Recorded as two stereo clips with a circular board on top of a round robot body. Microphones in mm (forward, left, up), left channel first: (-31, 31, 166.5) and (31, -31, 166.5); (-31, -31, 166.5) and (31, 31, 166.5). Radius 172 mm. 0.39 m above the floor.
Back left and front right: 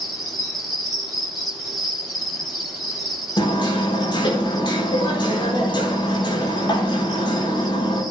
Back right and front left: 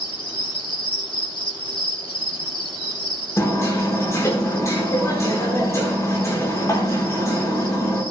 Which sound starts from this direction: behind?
Hammering, at 3.4 s.